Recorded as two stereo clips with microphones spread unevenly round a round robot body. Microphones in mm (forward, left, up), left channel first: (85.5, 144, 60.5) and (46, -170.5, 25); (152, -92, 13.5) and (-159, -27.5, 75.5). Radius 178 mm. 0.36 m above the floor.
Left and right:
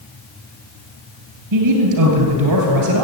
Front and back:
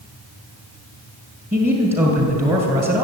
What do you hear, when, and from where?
1.5 s a man speaking: 120° right, 2 m